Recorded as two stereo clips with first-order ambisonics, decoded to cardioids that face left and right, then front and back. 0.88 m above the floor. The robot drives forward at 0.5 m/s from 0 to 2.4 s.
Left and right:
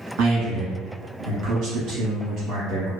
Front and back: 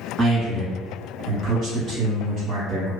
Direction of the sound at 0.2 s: 95° right.